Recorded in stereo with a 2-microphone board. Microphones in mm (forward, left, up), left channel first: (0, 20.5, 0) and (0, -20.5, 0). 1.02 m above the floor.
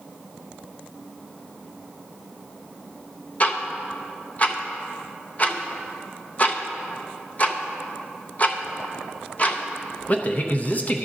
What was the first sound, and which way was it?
Ticking, 35° left (ahead or behind).